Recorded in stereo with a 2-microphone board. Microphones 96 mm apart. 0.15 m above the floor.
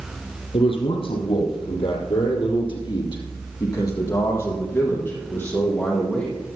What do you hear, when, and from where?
0.5 s a man speaking: 70° left (ahead or behind), 4.5 m; by 6.3 s 15° left (ahead or behind), 6 m